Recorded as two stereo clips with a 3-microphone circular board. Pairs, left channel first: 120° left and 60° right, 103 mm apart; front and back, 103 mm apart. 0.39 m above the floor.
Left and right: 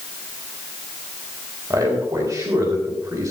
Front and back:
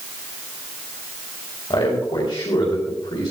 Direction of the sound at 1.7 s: 15° right.